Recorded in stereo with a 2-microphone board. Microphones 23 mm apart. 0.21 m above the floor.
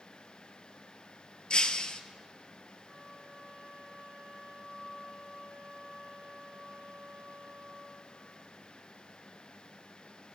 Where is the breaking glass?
40° left (ahead or behind), 0.6 m.